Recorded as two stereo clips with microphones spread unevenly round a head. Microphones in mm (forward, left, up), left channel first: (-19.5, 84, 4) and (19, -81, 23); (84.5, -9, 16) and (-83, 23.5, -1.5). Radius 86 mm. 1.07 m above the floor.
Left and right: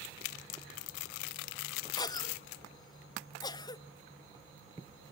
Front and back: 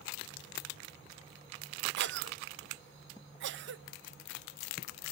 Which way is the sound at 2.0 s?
165° left.